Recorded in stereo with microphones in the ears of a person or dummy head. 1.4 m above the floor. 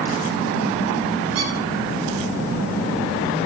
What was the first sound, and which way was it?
A squeak, 75° right (ahead or behind).